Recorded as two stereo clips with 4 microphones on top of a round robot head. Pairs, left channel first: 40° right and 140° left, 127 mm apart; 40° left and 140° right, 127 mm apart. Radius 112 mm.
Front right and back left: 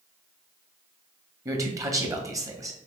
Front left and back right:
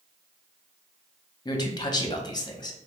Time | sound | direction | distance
1.4 | a man speaking | 85° left | 1.1 m